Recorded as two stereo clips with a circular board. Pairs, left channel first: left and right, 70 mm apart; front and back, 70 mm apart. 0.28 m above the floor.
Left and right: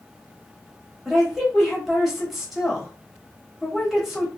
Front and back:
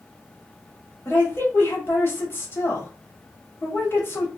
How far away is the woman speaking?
About 1.1 m.